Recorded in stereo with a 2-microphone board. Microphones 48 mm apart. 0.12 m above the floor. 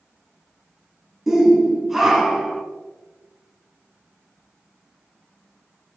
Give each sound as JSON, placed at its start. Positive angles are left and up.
{"t": 1.3, "sound": "a shout", "side_deg": -5, "distance_m": 1.5}